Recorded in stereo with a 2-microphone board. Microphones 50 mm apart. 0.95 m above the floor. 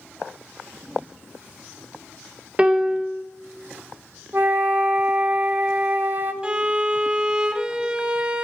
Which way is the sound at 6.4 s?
20° right (ahead or behind).